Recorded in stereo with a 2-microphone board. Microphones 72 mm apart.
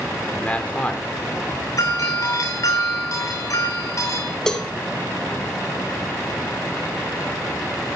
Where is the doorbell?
50° left (ahead or behind), 8 m.